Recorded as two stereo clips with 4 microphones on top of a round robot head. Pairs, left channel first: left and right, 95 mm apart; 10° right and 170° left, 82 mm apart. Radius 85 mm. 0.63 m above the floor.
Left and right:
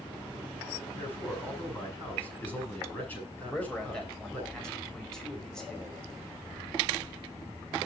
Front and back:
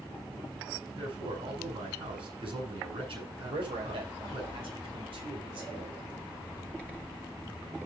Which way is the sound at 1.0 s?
165° left.